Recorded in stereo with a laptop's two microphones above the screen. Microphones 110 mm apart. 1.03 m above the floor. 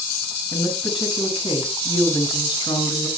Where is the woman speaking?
50° left (ahead or behind), 8 m.